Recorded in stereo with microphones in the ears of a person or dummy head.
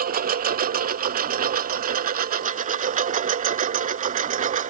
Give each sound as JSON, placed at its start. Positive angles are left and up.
{"t": 0.0, "sound": "a lawn mower", "side_deg": -45}